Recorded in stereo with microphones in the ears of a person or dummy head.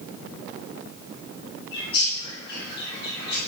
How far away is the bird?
About 6.5 m.